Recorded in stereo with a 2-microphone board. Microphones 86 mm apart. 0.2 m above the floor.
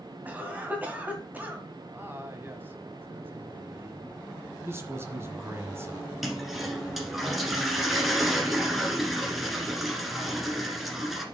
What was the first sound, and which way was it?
A cough, 20° right (ahead or behind).